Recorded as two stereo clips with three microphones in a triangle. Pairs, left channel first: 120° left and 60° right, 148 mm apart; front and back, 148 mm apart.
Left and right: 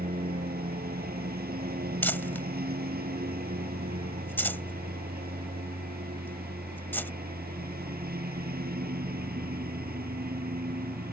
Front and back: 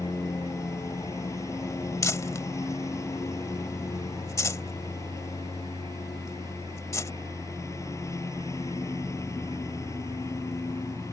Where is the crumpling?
55° left.